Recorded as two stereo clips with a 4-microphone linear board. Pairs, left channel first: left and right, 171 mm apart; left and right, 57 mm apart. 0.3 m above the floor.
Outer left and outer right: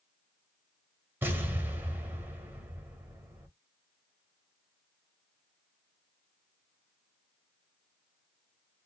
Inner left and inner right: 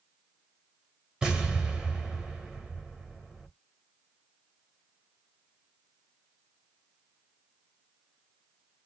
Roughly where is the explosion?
Centre.